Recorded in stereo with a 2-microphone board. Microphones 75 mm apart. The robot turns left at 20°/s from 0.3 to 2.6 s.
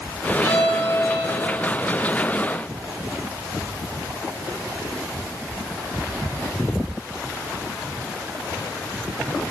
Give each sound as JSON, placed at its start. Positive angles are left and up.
{"t": 0.4, "sound": "a violin", "side_deg": -65, "distance_m": 4.0}